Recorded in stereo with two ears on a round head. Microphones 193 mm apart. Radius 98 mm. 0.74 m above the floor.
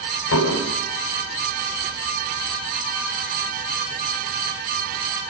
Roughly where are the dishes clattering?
Left.